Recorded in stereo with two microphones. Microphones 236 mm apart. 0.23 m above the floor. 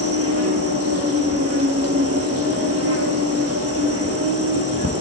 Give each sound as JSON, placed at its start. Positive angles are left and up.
{"t": 0.0, "sound": "an insect", "side_deg": -90, "distance_m": 1.0}